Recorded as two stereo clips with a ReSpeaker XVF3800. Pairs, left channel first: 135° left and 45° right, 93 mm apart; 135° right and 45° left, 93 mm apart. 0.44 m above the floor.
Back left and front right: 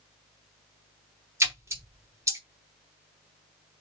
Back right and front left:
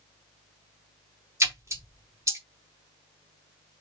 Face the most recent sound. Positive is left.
turn(degrees=0)